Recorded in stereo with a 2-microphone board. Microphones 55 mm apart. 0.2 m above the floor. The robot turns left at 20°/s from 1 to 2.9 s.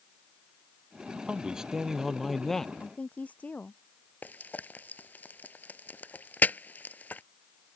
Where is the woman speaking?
25° left (ahead or behind).